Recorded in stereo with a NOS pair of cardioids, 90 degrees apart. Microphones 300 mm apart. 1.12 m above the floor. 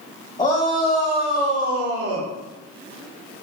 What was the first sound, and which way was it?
A shout, 15° left.